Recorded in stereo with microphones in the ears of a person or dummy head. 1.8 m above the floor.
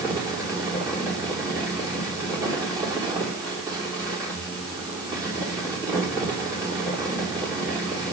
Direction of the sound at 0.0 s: 20° right (ahead or behind).